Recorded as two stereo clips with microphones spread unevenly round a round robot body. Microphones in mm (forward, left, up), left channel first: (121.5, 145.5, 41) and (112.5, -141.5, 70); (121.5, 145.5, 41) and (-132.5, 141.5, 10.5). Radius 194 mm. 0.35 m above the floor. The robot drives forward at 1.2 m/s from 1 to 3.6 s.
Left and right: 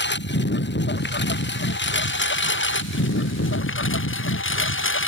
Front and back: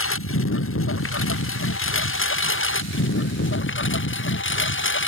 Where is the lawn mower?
35° left; by 5.1 s 40° left.